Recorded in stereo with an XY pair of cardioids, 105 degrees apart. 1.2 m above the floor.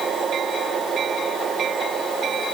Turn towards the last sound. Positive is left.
No sound to turn to.